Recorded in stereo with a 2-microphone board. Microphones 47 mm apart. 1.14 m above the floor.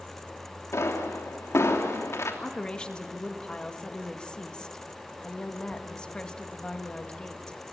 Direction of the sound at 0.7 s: 80° left.